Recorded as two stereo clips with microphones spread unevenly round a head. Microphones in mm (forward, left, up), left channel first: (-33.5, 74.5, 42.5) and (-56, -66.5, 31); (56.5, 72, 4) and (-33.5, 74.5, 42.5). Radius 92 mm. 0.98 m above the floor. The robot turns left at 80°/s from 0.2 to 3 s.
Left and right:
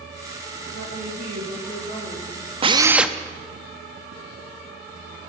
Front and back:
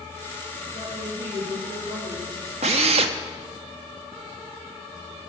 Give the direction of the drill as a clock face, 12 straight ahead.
5 o'clock.